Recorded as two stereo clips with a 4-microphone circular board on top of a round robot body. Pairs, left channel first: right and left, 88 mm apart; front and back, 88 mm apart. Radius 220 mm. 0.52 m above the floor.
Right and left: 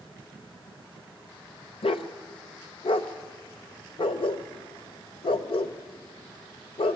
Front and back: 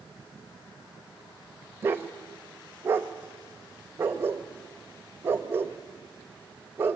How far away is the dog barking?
About 1.0 m.